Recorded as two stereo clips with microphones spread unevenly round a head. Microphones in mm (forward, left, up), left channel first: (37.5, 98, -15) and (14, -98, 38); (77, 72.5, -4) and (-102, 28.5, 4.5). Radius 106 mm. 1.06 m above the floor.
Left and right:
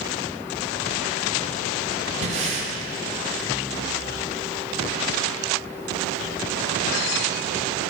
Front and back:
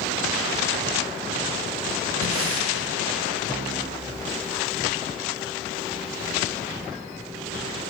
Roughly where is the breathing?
Behind right.